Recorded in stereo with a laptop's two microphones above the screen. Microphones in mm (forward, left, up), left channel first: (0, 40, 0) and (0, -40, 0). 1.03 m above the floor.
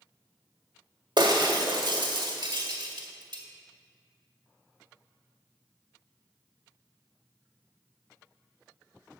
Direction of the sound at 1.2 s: 70° right (ahead or behind).